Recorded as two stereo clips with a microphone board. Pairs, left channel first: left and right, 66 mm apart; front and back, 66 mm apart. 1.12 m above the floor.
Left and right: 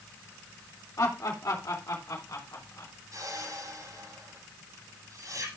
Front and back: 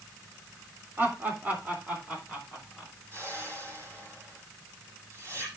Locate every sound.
1.0 s laughter: 125° left, 3 m; by 2.9 s 110° left, 5 m
3.1 s a whoosh: 130° right, 8 m